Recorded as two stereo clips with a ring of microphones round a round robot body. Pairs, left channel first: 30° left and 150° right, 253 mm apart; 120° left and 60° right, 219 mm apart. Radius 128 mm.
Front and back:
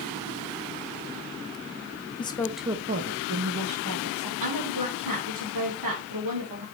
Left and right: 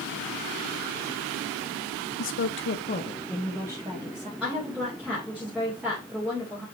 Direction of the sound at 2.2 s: 100° left.